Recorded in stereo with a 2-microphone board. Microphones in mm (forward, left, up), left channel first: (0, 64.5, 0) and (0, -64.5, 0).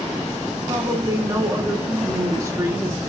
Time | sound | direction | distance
0.7 | a woman speaking | 20° right (ahead or behind) | 0.9 m